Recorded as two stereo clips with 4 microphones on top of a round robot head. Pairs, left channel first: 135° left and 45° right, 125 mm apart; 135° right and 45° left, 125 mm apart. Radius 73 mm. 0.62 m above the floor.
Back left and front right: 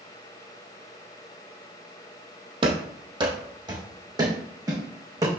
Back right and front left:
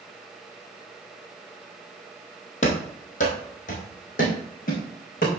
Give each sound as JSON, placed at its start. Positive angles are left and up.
{"t": 2.6, "sound": "running footsteps", "azimuth_deg": -100, "distance_m": 1.5}